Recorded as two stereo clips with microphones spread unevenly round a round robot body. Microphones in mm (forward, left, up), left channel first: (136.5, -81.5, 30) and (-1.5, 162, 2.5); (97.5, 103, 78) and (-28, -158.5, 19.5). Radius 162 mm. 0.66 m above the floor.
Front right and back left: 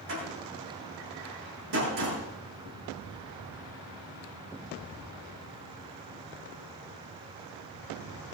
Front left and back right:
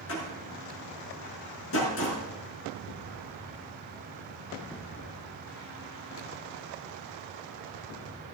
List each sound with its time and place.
0.1 s a door slam: 115° left, 6.5 m